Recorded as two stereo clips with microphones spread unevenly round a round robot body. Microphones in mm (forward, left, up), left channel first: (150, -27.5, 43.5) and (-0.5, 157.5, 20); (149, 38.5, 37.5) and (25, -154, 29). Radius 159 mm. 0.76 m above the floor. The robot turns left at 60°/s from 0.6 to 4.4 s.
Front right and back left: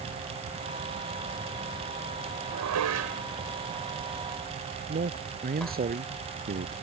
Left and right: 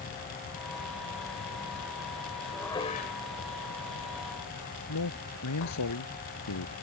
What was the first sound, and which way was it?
Dishes clattering, 150° left.